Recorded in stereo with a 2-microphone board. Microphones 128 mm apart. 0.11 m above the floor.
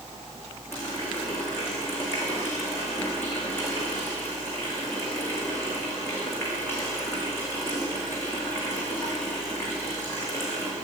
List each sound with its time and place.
0.7 s a running tap: 20° left (ahead or behind), 6.5 m